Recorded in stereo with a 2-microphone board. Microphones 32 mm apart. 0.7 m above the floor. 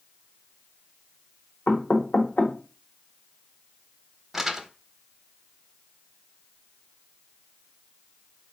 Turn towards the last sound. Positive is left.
turn(degrees=-10)  # may be behind; listen again after turning